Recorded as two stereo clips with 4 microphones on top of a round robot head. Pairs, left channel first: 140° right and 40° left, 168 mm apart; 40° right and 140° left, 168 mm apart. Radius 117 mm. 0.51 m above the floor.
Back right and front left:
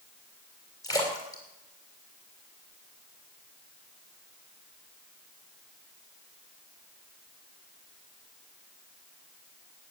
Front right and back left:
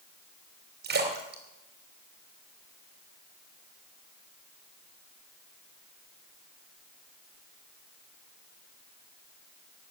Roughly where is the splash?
Behind left.